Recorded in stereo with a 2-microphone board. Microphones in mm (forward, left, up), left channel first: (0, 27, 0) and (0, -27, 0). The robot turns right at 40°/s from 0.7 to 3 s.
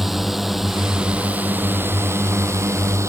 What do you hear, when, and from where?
0.0 s a drone: 175° right; by 3.1 s 85° right